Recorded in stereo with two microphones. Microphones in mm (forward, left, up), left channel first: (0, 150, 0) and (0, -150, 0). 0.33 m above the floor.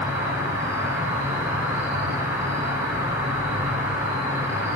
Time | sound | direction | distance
0.0 | an insect | 10° right (ahead or behind) | 0.7 m